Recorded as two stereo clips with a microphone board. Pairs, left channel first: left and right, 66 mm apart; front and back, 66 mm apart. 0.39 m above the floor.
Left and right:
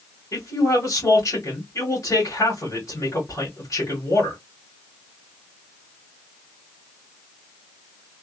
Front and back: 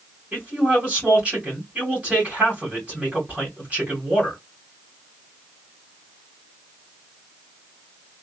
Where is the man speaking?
115° left, 2 m.